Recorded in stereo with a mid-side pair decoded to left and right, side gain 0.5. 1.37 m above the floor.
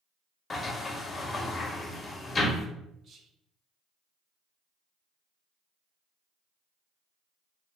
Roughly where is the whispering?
Ahead right.